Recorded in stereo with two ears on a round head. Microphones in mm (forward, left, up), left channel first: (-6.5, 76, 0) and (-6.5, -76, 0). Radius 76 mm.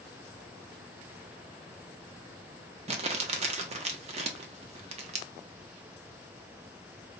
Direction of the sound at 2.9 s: 40° right (ahead or behind).